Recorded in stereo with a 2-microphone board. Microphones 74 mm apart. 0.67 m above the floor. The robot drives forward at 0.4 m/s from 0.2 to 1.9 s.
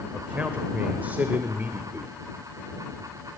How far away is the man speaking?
About 2 m.